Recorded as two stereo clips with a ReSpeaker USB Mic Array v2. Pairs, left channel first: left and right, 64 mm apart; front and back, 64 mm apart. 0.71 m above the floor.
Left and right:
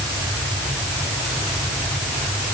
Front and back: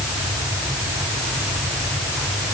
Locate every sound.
Only background noise.